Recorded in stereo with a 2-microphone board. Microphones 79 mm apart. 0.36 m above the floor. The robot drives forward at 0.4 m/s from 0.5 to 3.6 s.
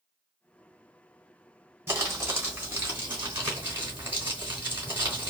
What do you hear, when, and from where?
1.9 s crumpling: 35° right (ahead or behind), 2.5 m; by 5.3 s 30° right (ahead or behind), 3 m